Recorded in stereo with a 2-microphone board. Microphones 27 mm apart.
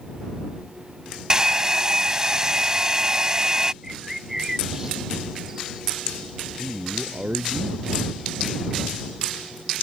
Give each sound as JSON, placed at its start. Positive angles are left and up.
{"t": 1.3, "sound": "a hair dryer", "side_deg": -20}
{"t": 3.8, "sound": "a bird", "side_deg": -15}
{"t": 6.6, "sound": "a man speaking", "side_deg": -30}